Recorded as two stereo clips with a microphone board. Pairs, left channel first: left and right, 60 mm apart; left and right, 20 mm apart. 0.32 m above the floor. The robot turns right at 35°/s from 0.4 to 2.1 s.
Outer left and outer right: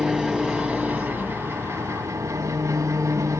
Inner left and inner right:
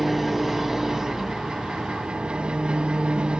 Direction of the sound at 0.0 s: 170° right.